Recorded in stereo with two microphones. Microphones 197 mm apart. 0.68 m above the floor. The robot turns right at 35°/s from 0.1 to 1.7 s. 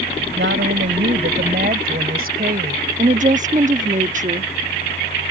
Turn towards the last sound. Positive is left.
turn(degrees=-40)  # may be behind; listen again after turning